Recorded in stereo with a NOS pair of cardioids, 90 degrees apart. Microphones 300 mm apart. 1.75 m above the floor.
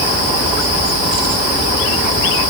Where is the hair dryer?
I don't hear a hair dryer.